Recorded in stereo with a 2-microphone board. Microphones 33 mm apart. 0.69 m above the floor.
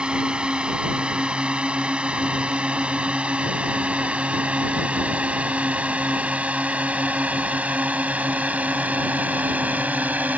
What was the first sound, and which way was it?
A drone, 35° right (ahead or behind).